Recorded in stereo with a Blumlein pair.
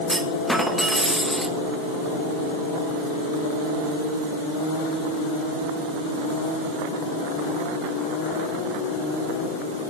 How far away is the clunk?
About 1.4 m.